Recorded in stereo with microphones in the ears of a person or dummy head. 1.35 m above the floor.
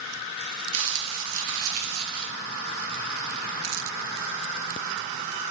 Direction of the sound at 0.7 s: 75° right (ahead or behind).